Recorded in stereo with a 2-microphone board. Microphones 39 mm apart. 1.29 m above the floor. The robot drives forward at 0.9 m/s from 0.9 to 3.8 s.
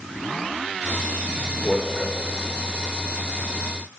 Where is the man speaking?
15° left (ahead or behind), 4 m; by 2.2 s 10° left (ahead or behind), 4.5 m.